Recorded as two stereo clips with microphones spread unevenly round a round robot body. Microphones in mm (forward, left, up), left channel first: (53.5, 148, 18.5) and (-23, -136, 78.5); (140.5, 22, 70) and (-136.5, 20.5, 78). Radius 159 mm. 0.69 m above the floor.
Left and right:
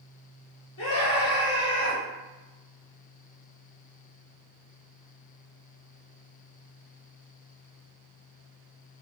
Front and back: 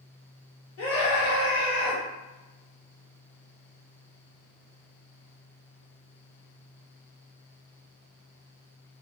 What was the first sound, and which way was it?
A scream, 35° left.